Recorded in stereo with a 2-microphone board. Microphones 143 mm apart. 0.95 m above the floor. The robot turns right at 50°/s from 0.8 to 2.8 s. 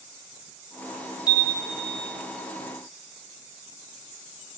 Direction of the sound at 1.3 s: 35° left.